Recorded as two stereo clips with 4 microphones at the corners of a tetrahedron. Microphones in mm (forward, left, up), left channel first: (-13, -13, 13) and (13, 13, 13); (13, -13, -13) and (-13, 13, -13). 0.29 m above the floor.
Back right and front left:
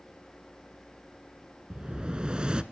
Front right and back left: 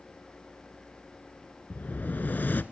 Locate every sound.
1.7 s an explosion: 15° right, 0.7 m